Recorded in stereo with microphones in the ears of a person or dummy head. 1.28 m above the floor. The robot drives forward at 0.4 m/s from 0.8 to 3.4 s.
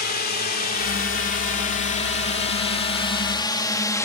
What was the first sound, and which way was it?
A drone, 50° left (ahead or behind).